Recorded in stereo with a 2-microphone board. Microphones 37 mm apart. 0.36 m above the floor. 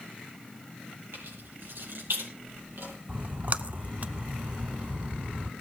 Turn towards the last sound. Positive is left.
turn(degrees=-45)  # may be behind; listen again after turning